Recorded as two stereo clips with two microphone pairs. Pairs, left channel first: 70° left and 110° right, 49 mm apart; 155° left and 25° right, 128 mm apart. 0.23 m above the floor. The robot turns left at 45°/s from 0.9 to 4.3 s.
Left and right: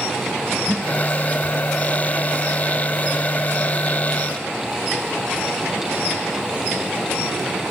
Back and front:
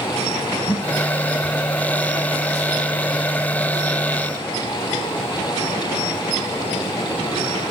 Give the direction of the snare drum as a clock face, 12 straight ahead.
4 o'clock.